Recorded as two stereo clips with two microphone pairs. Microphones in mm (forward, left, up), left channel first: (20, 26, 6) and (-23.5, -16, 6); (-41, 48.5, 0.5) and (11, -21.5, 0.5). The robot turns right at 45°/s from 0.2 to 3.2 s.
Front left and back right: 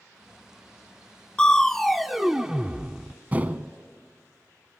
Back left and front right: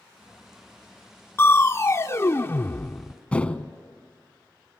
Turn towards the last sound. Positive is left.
turn(degrees=-170)